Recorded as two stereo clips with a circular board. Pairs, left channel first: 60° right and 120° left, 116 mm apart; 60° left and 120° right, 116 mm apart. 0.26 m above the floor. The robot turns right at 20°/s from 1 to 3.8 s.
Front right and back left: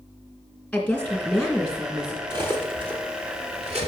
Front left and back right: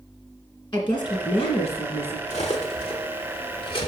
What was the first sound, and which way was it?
A woman speaking, 25° left.